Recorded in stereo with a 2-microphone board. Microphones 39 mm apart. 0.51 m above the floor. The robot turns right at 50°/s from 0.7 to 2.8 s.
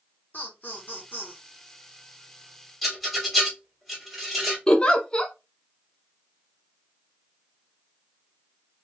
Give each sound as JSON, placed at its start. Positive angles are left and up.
{"t": 0.3, "sound": "laughter", "azimuth_deg": 75, "distance_m": 0.9}
{"t": 2.8, "sound": "a rattle", "side_deg": 0, "distance_m": 1.7}
{"t": 4.7, "sound": "a giggle", "side_deg": 25, "distance_m": 0.6}